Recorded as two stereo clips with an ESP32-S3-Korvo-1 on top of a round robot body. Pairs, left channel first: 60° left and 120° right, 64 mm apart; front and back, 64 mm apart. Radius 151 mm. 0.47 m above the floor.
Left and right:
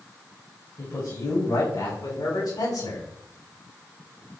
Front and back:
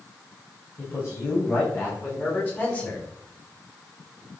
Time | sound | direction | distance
0.8 | a man speaking | 35° left | 4.5 m